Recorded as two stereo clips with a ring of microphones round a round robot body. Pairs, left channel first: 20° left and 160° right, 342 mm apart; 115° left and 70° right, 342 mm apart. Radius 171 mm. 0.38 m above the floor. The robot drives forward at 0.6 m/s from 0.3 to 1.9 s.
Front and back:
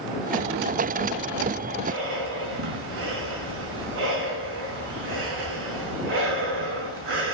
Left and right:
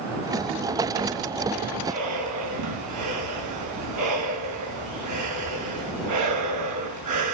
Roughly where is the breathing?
Right.